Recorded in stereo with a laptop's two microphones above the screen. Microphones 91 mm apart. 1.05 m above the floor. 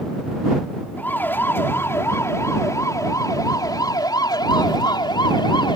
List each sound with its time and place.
1.0 s a siren: 25° left (ahead or behind); by 5.8 s 70° left (ahead or behind)